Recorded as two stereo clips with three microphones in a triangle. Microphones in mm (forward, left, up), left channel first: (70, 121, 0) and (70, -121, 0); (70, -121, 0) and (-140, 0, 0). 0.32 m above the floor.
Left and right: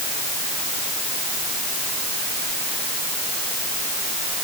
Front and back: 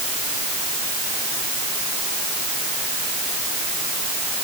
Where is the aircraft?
No aircraft in this recording.